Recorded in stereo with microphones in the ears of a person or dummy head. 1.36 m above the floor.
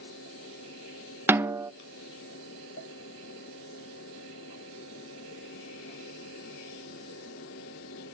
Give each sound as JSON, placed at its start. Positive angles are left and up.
{"t": 0.0, "sound": "a fan", "side_deg": 70, "distance_m": 4.0}
{"t": 1.3, "sound": "a snare drum", "side_deg": -15, "distance_m": 0.8}